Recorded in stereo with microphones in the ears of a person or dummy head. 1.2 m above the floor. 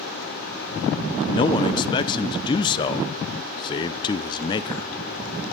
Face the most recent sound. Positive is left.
turn(degrees=20)  # may be behind; listen again after turning